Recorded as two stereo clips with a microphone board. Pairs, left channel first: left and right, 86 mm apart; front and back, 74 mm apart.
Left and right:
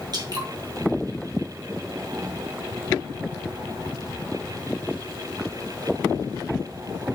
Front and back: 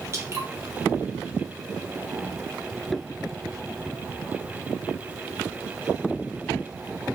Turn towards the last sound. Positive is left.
turn(degrees=-130)